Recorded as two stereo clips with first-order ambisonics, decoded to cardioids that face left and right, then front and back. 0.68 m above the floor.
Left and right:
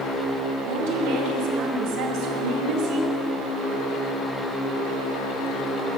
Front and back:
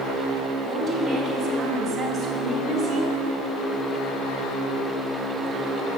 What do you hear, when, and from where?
0.6 s a woman speaking: 95° right, 4.5 m; by 3.1 s 115° right, 4.5 m